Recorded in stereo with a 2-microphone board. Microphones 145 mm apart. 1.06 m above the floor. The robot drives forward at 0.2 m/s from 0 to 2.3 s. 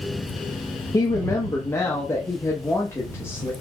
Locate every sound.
0.9 s a woman speaking: 25° left (ahead or behind), 0.6 m; by 3.5 s 15° left (ahead or behind), 0.9 m